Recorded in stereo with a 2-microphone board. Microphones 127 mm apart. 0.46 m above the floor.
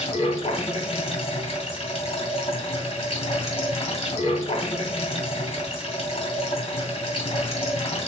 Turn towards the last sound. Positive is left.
turn(degrees=50)  # may be behind; listen again after turning